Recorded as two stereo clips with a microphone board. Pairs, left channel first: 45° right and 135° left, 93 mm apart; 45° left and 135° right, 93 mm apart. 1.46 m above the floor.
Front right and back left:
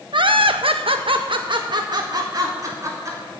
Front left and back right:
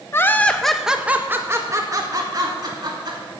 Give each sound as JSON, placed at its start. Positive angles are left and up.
{"t": 0.1, "sound": "laughter", "azimuth_deg": 105, "distance_m": 1.2}